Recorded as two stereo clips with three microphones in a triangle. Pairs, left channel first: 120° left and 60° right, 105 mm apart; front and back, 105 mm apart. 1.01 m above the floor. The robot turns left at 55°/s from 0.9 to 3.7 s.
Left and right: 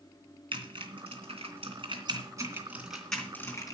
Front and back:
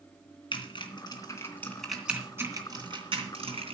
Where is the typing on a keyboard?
35° right, 3 m; by 3.8 s 170° left, 3 m.